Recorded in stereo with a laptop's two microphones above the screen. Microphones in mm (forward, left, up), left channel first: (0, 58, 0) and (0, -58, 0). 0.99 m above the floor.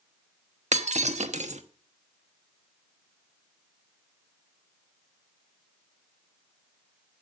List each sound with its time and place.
0.7 s breaking glass: 85° right, 0.9 m